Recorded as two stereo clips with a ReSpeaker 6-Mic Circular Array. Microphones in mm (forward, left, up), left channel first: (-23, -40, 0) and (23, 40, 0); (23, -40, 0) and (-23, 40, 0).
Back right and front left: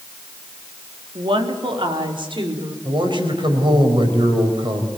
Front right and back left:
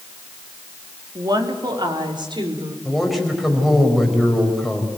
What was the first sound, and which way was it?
A woman speaking, 75° left.